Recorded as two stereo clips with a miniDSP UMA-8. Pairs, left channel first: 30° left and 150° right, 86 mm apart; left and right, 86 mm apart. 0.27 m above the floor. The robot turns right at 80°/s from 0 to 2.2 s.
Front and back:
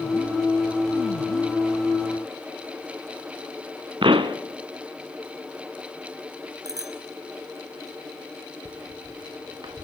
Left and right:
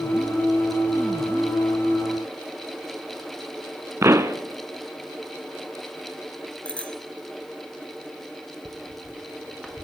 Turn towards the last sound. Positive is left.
turn(degrees=175)